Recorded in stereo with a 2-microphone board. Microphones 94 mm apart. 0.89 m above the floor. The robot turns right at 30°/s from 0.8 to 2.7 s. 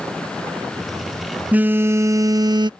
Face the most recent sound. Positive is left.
turn(degrees=-130)